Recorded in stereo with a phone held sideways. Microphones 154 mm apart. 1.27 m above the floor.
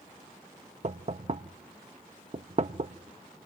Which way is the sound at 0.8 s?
50° right (ahead or behind).